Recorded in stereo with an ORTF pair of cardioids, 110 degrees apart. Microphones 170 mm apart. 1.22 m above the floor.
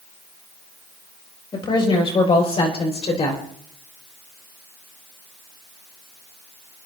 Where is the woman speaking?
30° left, 6 m; by 3.4 s 40° left, 4.5 m.